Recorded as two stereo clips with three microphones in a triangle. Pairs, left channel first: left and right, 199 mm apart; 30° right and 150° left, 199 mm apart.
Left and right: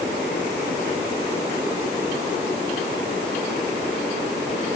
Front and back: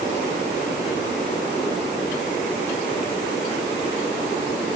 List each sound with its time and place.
Only background noise.